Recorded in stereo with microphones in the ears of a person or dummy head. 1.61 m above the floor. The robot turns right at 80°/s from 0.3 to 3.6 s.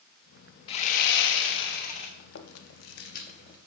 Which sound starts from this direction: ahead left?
Sawing, at 0.7 s.